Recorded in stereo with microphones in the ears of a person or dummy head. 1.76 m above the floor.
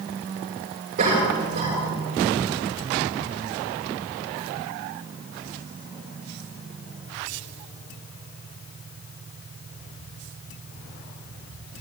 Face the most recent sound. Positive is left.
turn(degrees=-40)  # may be behind; listen again after turning